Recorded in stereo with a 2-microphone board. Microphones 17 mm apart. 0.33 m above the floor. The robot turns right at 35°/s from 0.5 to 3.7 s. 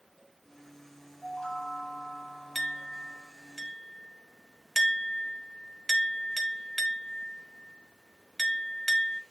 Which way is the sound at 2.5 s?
10° left (ahead or behind).